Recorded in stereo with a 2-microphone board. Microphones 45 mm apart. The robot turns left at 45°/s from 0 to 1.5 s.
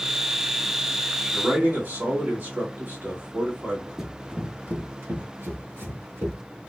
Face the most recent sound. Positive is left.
turn(degrees=-75)  # may be behind; listen again after turning